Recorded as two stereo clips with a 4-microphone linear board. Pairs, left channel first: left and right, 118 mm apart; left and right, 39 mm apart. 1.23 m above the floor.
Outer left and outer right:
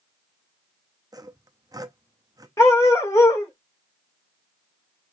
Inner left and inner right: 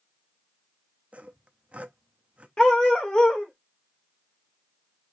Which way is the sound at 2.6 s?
25° left (ahead or behind).